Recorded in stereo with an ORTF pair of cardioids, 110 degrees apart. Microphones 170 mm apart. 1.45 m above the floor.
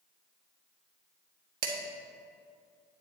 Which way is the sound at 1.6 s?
60° right.